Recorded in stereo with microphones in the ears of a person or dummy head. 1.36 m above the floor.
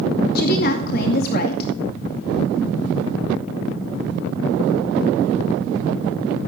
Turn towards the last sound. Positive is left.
turn(degrees=55)  # may be behind; listen again after turning